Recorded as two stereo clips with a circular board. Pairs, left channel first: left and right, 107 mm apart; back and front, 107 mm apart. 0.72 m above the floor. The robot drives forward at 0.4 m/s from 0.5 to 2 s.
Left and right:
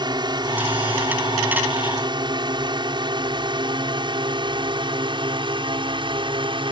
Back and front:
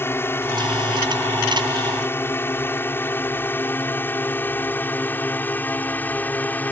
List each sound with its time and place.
0.0 s a drone: 120° right; by 6.7 s 110° right